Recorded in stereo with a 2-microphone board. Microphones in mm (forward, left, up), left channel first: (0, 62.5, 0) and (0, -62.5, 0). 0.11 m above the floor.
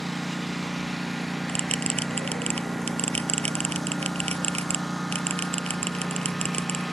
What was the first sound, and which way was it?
A lawn mower, centre (ahead or behind).